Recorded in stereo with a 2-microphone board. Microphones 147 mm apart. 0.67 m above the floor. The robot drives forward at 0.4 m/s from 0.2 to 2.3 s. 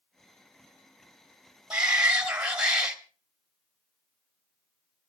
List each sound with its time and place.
1.7 s a shout: 5° right (ahead or behind), 2.0 m